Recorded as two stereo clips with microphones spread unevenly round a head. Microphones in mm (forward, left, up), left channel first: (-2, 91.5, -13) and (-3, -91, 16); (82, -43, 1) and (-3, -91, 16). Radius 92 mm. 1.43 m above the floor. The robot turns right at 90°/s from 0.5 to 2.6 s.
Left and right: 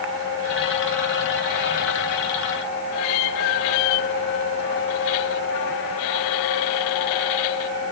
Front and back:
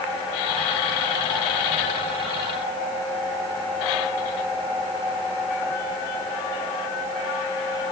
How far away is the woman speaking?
No woman speaking in this recording.